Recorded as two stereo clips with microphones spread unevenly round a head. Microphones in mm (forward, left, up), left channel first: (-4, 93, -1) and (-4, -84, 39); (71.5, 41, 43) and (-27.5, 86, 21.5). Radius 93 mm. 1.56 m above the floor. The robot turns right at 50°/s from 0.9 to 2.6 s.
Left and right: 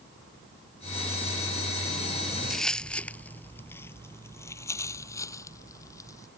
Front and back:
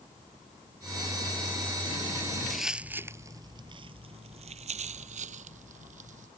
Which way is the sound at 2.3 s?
60° right.